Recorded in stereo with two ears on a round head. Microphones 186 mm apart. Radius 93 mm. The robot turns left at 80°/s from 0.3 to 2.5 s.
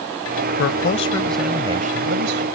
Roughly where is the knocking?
I don't hear knocking.